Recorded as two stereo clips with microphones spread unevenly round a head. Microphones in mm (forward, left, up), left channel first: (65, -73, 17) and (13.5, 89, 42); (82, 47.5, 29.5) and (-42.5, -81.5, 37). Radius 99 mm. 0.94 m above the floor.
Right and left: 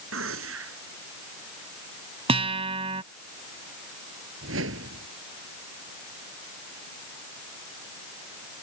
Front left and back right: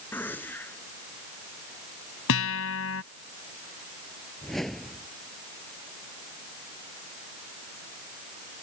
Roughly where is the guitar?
Ahead left.